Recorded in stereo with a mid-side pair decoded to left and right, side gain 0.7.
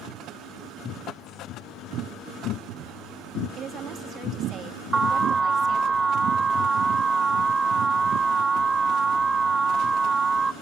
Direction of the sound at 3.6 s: 40° right.